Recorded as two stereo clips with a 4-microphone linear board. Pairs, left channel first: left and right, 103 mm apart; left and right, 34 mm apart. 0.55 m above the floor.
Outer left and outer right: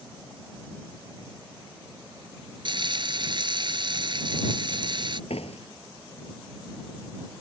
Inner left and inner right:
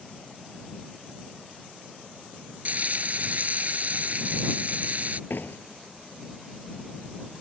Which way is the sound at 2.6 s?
50° right (ahead or behind).